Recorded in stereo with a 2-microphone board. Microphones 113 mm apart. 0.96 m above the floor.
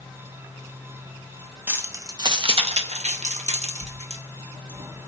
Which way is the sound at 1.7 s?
15° right (ahead or behind).